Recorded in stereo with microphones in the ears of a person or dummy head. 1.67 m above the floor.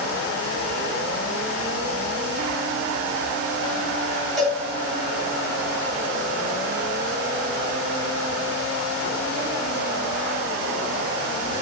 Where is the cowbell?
Centre (ahead or behind), 3.5 m.